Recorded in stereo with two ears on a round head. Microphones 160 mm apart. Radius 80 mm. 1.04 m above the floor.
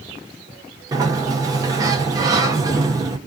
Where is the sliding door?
20° right (ahead or behind), 0.8 m.